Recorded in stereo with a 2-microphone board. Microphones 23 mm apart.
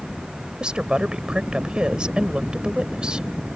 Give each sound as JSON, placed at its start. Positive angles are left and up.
{"t": 0.6, "sound": "a woman speaking", "side_deg": -40}